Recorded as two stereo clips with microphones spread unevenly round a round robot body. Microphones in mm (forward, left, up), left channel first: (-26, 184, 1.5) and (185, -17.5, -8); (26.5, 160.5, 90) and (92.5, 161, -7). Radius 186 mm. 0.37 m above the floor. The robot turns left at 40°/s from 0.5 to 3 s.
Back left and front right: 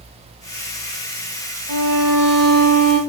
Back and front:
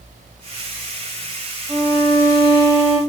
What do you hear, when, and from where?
1.7 s a violin: 55° right, 0.7 m; by 3.0 s 110° right, 0.7 m